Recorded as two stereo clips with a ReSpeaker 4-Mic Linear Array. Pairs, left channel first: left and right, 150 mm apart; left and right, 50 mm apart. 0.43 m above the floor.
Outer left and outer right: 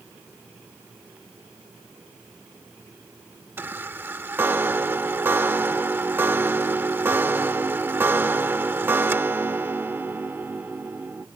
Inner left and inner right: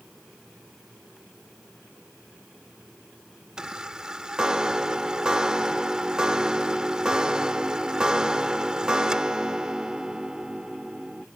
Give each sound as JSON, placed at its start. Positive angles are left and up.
{"t": 3.6, "sound": "a chime", "side_deg": -15}